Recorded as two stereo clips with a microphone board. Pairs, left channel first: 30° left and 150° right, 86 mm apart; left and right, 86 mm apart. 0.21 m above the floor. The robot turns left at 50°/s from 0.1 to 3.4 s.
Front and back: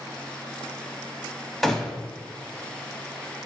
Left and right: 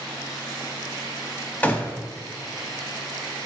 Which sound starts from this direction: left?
A gunshot, at 1.6 s.